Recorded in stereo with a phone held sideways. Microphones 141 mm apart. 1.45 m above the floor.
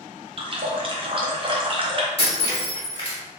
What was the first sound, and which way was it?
A running tap, 40° right (ahead or behind).